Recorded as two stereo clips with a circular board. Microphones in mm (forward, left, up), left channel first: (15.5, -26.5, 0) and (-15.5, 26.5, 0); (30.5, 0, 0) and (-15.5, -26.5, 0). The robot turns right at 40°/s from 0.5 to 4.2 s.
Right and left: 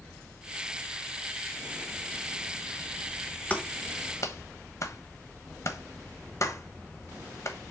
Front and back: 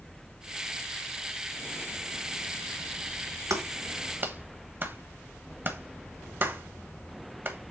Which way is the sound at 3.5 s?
130° right.